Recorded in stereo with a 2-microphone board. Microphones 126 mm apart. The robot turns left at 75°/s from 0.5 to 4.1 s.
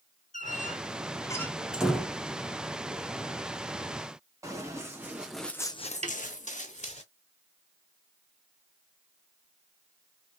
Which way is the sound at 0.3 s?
85° left.